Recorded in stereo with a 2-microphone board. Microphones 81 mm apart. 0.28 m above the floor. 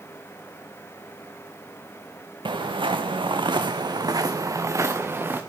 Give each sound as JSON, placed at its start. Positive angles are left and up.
{"t": 2.5, "sound": "footsteps", "side_deg": -75, "distance_m": 1.5}